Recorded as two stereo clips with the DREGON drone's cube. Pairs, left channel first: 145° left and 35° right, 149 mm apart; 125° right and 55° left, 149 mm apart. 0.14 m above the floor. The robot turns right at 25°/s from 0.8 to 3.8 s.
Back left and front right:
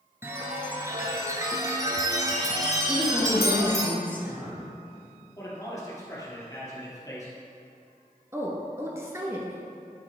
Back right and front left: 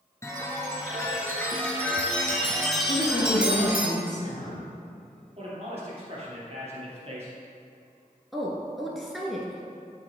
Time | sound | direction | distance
0.2 | a chime | 85° right | 1.3 m
2.9 | a woman speaking | 135° right | 2 m
5.4 | a man speaking | 85° left | 2.5 m
8.3 | a woman speaking | 30° right | 1.0 m